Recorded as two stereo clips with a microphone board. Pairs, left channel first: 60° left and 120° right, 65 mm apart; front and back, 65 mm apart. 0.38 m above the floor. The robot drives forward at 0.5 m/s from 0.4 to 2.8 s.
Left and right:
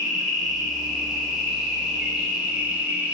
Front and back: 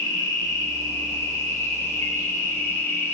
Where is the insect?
35° right, 3 m; by 3.1 s 50° right, 2 m.